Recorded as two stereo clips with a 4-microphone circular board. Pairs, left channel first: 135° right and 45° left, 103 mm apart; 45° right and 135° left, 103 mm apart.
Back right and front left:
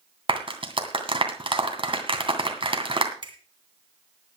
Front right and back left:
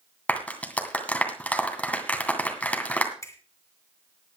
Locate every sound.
0.3 s a clap: 30° left, 2.5 m
3.2 s a finger snap: 10° left, 2.5 m